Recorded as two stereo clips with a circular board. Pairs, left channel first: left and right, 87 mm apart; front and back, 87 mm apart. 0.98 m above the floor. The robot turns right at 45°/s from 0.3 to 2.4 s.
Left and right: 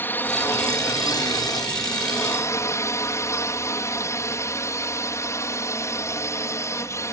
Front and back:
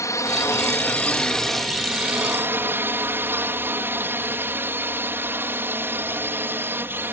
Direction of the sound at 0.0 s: 35° left.